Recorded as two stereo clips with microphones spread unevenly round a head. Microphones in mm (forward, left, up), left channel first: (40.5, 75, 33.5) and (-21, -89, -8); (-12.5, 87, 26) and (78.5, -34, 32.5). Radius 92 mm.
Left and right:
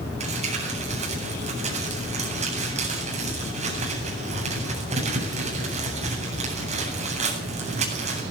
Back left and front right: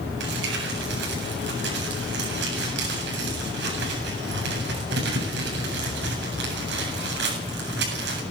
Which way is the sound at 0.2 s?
55° right.